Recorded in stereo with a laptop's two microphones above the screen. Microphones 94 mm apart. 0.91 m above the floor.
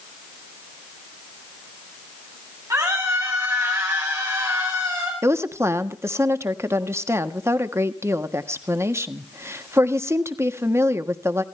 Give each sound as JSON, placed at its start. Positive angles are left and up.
{"t": 2.7, "sound": "a scream", "side_deg": -35, "distance_m": 8.0}
{"t": 5.2, "sound": "a woman speaking", "side_deg": -25, "distance_m": 1.3}